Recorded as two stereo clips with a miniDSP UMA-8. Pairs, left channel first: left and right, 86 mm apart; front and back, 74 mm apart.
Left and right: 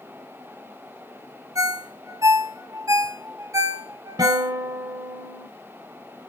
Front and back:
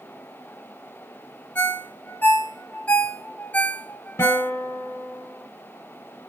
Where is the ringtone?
60° right, 0.6 m.